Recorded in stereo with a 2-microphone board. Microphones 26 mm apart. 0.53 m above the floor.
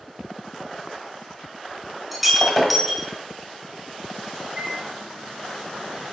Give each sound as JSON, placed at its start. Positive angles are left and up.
{"t": 2.1, "sound": "breaking glass", "side_deg": 0, "distance_m": 1.6}
{"t": 4.5, "sound": "a microwave", "side_deg": -30, "distance_m": 1.8}